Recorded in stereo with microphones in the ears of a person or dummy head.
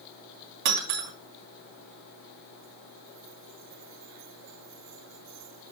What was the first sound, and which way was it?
Breaking glass, 55° right (ahead or behind).